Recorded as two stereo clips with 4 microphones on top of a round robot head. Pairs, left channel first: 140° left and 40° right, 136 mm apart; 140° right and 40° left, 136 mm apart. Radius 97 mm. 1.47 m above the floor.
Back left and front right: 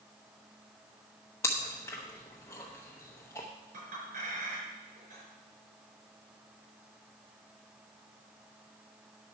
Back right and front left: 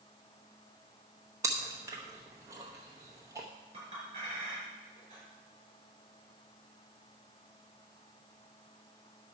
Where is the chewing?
85° left, 0.8 m.